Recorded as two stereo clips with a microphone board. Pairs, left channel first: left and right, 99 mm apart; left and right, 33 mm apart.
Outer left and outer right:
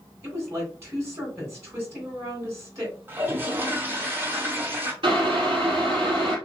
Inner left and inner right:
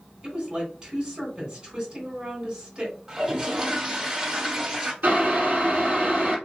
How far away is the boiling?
About 3 m.